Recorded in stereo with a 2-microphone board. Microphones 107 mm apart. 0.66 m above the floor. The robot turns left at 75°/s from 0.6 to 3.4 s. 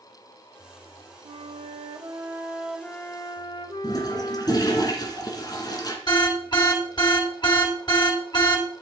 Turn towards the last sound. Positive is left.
turn(degrees=45)  # may be behind; listen again after turning